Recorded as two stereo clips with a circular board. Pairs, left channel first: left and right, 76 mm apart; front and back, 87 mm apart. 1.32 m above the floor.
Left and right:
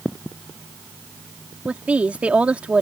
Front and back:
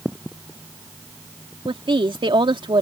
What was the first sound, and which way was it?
A woman speaking, 165° right.